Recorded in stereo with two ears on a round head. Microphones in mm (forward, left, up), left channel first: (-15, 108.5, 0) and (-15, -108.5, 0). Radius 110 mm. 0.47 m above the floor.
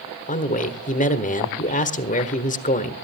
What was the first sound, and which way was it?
A man speaking, 35° left (ahead or behind).